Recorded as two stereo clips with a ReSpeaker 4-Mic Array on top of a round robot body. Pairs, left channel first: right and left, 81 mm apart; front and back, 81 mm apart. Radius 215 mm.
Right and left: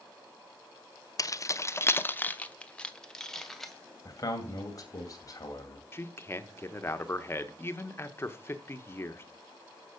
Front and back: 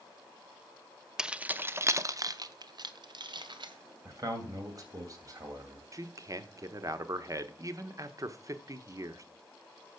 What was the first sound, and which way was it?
Keys jangling, 100° right.